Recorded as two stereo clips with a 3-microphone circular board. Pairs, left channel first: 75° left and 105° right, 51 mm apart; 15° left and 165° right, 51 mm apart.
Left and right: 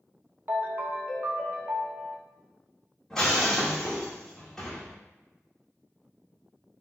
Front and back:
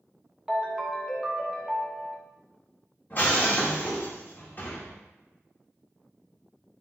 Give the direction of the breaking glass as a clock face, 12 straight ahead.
12 o'clock.